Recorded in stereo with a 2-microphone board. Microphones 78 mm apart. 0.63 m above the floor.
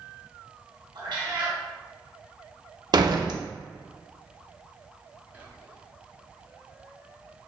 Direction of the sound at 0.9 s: 75° right (ahead or behind).